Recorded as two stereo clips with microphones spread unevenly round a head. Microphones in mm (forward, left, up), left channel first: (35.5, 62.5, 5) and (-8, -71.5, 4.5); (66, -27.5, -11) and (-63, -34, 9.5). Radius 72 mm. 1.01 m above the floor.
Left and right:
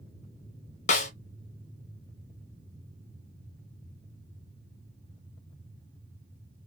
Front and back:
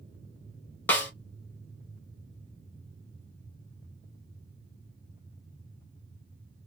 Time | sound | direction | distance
0.9 | a snare drum | 70° left | 1.0 m